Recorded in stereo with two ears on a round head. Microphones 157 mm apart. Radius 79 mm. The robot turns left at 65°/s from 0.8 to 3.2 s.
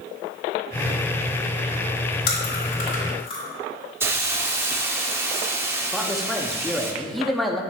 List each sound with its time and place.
2.3 s chewing: 65° left (ahead or behind), 3 m; by 3.4 s 35° left (ahead or behind), 3 m
4.0 s a hiss: 15° right (ahead or behind), 0.8 m
5.9 s a man speaking: centre (ahead or behind), 0.8 m